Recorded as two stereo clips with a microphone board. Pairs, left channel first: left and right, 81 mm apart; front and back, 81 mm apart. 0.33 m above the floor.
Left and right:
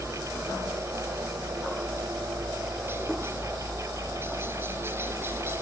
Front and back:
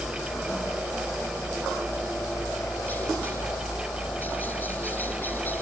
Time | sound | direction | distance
0.0 | a helicopter | 55° right | ?